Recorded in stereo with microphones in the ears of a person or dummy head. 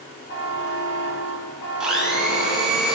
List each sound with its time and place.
0.3 s a buzzer: 55° left (ahead or behind), 2.5 m
1.8 s a blender: 5° right (ahead or behind), 1.1 m